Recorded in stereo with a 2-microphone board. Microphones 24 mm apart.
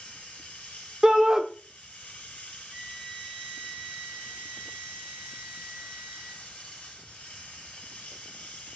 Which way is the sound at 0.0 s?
60° left (ahead or behind).